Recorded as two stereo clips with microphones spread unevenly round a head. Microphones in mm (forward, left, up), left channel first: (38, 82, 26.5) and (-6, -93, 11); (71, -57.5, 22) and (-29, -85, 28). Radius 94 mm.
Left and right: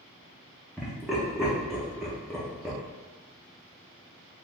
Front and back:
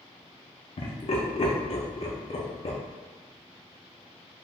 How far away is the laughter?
About 0.8 m.